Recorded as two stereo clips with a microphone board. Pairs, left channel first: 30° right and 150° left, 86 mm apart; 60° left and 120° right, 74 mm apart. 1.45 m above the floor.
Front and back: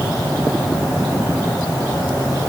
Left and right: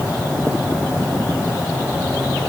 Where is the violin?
I don't hear a violin.